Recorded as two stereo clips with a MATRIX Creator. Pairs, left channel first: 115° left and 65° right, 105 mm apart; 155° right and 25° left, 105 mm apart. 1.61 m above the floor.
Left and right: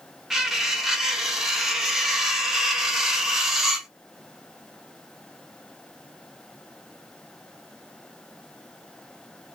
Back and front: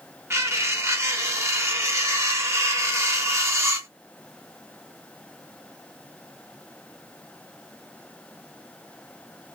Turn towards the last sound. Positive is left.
turn(degrees=15)